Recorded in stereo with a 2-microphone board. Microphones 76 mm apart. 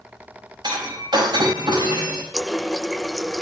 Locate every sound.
0.6 s breaking glass: 80° right, 4.5 m
2.3 s a running tap: centre (ahead or behind), 0.7 m